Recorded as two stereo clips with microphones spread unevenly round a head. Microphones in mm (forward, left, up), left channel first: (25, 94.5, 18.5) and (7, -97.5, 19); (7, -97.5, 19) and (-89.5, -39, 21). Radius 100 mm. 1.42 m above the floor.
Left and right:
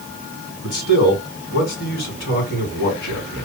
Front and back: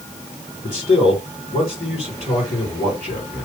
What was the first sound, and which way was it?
A man speaking, 45° left.